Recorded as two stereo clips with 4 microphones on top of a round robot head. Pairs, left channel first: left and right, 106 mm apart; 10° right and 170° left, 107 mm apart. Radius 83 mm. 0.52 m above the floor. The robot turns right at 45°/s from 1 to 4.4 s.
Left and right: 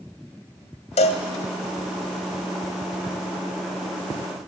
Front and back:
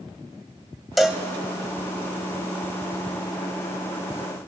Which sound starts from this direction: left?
A cowbell, at 1.0 s.